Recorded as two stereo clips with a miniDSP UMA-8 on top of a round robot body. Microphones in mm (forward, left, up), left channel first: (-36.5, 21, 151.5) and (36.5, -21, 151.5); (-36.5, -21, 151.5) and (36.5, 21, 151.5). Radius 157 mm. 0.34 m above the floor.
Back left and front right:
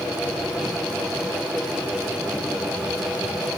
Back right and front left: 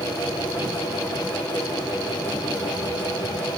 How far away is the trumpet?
I don't hear a trumpet.